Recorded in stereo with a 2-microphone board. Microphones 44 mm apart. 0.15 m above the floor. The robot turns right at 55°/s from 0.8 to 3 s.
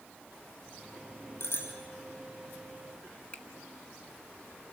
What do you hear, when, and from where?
1.4 s a bicycle bell: 55° left (ahead or behind), 4.5 m; by 1.7 s 70° left (ahead or behind), 4.5 m
3.3 s a finger snap: 30° left (ahead or behind), 1.3 m